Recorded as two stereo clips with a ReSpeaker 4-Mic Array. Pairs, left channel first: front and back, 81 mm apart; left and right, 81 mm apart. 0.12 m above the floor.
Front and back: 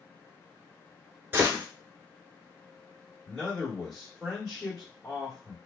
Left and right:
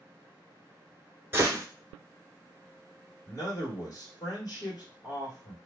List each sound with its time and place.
1.3 s a gunshot: 130° right, 0.9 m
3.3 s a man speaking: 80° left, 1.4 m